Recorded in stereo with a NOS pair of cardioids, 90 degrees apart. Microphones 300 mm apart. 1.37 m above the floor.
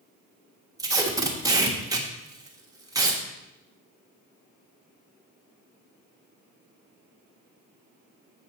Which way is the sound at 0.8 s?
10° right.